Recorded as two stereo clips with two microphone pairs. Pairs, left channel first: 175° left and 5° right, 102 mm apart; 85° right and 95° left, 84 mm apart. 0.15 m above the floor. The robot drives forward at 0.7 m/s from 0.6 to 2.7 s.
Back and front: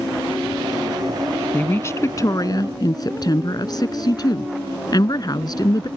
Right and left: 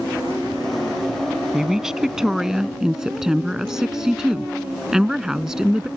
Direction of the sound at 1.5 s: 165° left.